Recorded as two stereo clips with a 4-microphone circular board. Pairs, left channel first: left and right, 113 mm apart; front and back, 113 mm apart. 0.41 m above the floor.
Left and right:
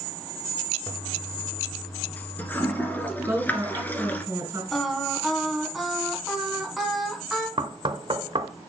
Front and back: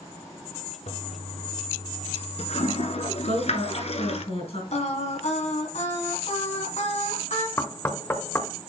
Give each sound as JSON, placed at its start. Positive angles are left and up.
{"t": 0.9, "sound": "a toilet flushing", "azimuth_deg": 15, "distance_m": 1.1}
{"t": 3.2, "sound": "a woman speaking", "azimuth_deg": -25, "distance_m": 4.0}
{"t": 4.7, "sound": "singing", "azimuth_deg": 0, "distance_m": 2.0}
{"t": 7.6, "sound": "knocking", "azimuth_deg": -65, "distance_m": 0.8}